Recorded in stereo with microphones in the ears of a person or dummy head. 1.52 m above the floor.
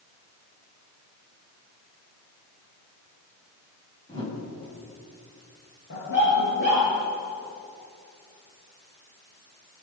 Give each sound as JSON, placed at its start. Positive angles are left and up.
{"t": 4.1, "sound": "a whoosh", "side_deg": 30, "distance_m": 8.0}
{"t": 5.9, "sound": "a dog barking", "side_deg": 70, "distance_m": 9.5}